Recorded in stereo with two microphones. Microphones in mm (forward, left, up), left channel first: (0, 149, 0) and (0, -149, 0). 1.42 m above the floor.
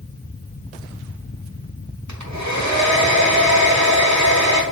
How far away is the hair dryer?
About 1.1 m.